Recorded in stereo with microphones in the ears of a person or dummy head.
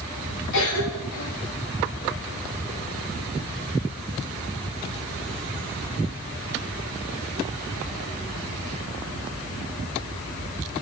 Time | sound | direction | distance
0.5 | a cough | 85° left | 4 m